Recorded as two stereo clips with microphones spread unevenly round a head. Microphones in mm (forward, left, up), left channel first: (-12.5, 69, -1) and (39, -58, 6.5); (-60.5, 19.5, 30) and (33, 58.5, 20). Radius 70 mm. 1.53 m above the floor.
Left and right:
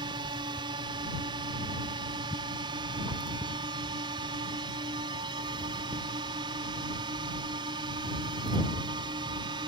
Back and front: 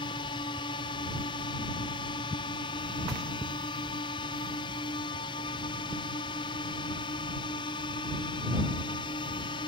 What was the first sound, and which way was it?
A drone, 120° right.